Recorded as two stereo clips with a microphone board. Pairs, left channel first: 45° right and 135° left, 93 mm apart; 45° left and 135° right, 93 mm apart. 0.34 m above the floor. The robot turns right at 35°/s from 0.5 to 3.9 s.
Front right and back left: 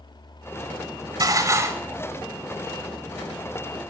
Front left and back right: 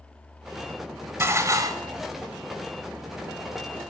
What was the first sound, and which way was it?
Dishes clattering, 170° left.